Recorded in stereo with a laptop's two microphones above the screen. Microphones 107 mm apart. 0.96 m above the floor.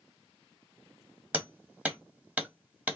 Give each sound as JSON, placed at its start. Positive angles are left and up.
{"t": 1.3, "sound": "hammering", "side_deg": -10, "distance_m": 1.1}